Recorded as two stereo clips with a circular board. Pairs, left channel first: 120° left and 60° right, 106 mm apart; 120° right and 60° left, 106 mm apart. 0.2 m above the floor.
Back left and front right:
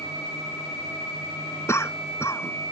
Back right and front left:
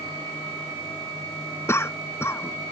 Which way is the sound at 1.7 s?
Straight behind.